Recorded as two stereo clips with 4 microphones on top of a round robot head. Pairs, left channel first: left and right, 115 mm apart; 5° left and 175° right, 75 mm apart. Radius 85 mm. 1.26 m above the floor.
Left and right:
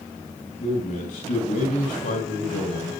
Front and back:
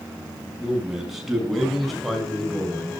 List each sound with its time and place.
0.6 s a man speaking: 100° left, 9 m; by 3.0 s 85° left, 7.5 m